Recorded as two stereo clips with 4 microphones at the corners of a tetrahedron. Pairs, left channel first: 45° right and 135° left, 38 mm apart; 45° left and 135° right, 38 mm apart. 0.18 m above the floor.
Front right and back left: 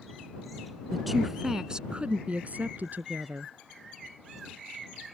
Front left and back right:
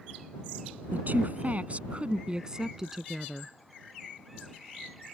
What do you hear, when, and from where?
0.9 s a woman speaking: 135° right; by 3.5 s 135° left